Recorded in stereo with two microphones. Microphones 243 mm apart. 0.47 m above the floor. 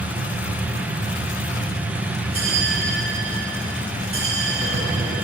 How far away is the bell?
About 2.5 m.